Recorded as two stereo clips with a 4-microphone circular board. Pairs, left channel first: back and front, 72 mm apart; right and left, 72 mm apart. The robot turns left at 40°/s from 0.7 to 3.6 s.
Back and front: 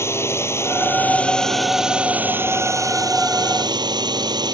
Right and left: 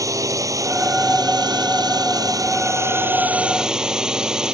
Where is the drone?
130° left; by 4.5 s 10° left.